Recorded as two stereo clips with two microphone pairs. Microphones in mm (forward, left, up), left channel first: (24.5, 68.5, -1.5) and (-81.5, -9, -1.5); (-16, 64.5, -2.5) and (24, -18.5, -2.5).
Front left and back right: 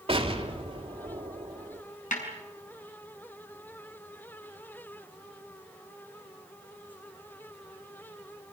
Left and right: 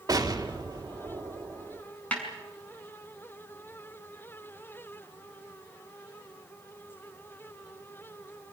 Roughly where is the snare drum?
Ahead left.